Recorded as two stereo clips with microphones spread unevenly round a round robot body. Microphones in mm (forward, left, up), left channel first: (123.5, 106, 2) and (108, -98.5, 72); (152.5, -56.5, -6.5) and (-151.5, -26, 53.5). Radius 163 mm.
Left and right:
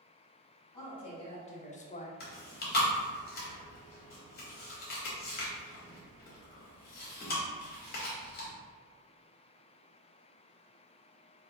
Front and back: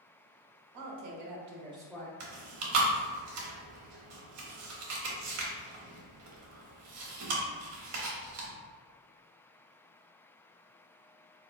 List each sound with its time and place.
0.7 s a woman speaking: 145° left, 0.9 m; by 2.1 s 60° left, 0.6 m
2.2 s chewing: 125° left, 0.7 m